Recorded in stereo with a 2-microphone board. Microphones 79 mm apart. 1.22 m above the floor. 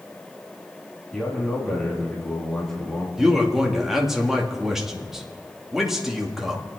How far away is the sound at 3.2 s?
About 2 m.